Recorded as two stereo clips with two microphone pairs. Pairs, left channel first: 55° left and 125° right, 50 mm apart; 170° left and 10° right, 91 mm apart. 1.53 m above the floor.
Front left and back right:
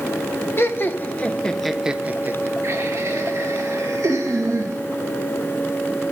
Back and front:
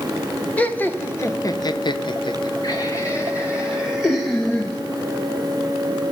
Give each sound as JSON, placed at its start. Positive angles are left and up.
{"t": 0.6, "sound": "laughter", "azimuth_deg": 95, "distance_m": 1.1}